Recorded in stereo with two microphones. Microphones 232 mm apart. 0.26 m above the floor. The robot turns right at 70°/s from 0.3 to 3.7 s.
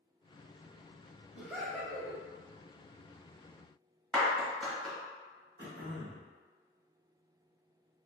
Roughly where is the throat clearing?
Right.